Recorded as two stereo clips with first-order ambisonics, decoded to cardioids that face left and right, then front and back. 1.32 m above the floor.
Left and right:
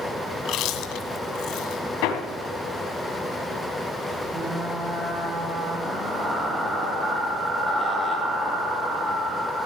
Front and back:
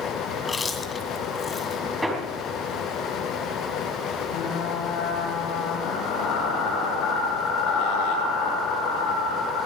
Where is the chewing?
70° left, 1.8 m.